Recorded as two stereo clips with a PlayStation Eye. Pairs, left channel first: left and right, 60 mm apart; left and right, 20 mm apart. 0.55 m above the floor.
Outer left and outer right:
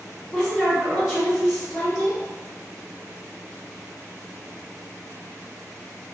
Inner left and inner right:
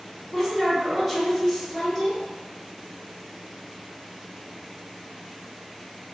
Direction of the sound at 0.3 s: 5° right (ahead or behind).